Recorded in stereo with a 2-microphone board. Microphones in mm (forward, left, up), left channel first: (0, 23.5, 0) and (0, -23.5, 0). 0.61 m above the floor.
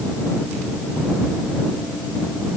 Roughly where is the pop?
I don't hear a pop.